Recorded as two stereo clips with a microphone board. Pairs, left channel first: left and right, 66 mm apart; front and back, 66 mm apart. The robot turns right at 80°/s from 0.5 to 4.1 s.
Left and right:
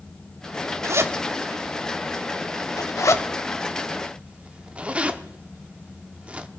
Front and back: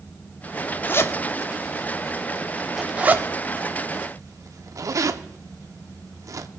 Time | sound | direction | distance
0.8 | a zipper | 60° right | 1.0 m